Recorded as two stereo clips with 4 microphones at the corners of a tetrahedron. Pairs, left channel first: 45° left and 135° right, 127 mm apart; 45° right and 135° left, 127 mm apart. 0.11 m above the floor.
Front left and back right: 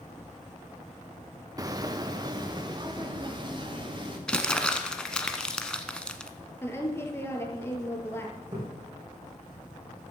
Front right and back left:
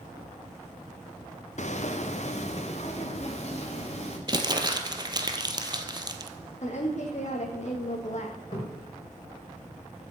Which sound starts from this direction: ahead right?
A woman speaking, at 6.6 s.